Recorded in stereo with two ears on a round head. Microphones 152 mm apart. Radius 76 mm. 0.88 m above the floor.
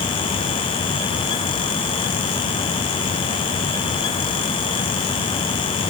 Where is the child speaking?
I don't hear a child speaking.